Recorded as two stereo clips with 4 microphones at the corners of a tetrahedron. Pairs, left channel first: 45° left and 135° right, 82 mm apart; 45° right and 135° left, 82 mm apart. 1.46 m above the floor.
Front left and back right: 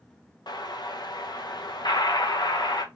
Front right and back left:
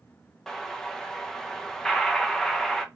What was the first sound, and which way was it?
An explosion, 35° left.